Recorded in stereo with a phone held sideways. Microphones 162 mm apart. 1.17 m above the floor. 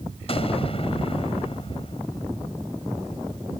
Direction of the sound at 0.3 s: 40° left (ahead or behind).